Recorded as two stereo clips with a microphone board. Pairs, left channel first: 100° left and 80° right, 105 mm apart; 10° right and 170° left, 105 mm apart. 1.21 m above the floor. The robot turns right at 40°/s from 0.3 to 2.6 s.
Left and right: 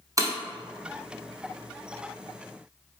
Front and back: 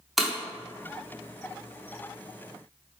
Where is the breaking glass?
100° right, 0.9 m.